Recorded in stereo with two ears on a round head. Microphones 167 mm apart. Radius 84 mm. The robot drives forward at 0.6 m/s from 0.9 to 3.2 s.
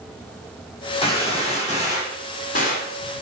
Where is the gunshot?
30° left (ahead or behind), 3 m; by 3.0 s 50° left (ahead or behind), 2 m.